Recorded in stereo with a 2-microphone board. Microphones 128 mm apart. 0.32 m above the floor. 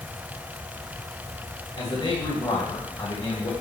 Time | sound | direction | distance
1.8 | a man speaking | 35° left (ahead or behind) | 1.8 m